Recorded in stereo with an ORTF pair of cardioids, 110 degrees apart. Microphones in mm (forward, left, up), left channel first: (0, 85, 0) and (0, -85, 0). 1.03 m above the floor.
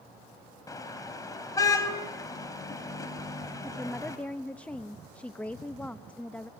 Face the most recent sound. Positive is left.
turn(degrees=10)